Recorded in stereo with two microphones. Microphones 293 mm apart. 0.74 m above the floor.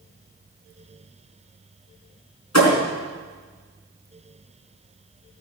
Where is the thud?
65° left (ahead or behind), 4 m.